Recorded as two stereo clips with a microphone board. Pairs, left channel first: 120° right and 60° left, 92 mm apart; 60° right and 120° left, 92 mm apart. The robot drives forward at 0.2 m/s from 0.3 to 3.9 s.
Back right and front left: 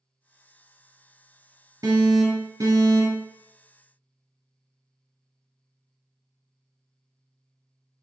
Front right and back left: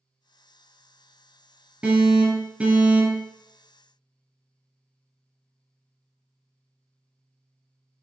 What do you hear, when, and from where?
1.8 s an alarm: 55° left, 1.7 m; by 3.3 s 70° left, 1.6 m